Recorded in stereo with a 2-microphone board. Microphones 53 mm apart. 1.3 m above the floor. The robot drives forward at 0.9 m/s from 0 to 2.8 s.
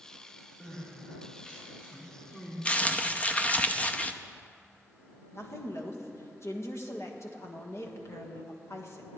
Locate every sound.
0.6 s crying: 20° left (ahead or behind), 5.5 m; by 2.5 s 30° left (ahead or behind), 4 m
2.6 s crumpling: 25° left (ahead or behind), 0.6 m; by 4.1 s 30° left (ahead or behind), 0.6 m
5.3 s a woman speaking: 65° left (ahead or behind), 1.6 m